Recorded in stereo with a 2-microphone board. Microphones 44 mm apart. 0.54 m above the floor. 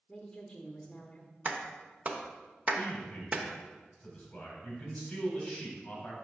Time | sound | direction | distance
0.1 | a woman speaking | 20° left (ahead or behind) | 1.0 m
1.4 | a clap | 35° right (ahead or behind) | 0.9 m
2.8 | a man speaking | 25° left (ahead or behind) | 3 m